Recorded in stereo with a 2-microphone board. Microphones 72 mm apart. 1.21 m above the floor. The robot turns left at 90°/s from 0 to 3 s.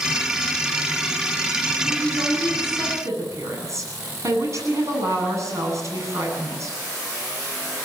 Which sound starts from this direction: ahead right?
A woman speaking, at 1.9 s.